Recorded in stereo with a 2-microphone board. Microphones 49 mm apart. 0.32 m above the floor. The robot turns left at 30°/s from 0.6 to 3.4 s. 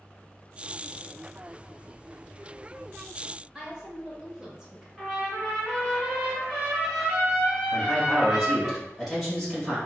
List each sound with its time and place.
3.5 s a woman speaking: 15° right (ahead or behind), 1.0 m
5.0 s a trumpet: 15° right (ahead or behind), 1.8 m
7.7 s a man speaking: 5° right (ahead or behind), 1.5 m